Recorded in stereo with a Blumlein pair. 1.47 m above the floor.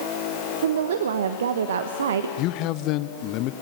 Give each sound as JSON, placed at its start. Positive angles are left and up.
{"t": 0.6, "sound": "a woman speaking", "azimuth_deg": -60, "distance_m": 1.1}
{"t": 2.4, "sound": "a man speaking", "azimuth_deg": 40, "distance_m": 1.0}